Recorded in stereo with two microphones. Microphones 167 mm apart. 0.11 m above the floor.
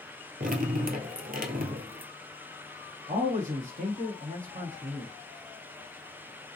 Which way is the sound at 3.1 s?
50° right (ahead or behind).